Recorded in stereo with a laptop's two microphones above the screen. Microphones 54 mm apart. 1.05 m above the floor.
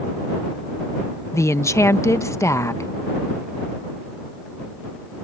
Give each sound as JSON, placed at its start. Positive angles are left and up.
{"t": 1.3, "sound": "a woman speaking", "side_deg": 70}